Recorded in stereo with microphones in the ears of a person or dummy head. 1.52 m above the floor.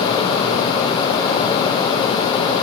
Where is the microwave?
No microwave in this recording.